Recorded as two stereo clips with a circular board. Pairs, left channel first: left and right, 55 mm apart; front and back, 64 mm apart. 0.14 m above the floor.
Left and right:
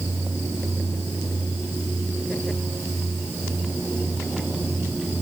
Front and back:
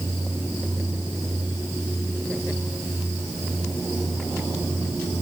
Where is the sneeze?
I don't hear a sneeze.